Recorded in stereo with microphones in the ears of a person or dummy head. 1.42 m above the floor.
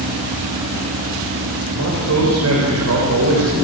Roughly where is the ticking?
I don't hear ticking.